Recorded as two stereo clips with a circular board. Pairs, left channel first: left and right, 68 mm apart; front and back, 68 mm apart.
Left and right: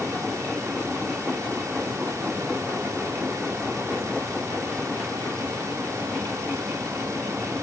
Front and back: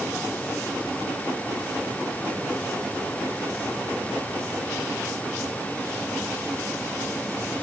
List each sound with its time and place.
Only background noise.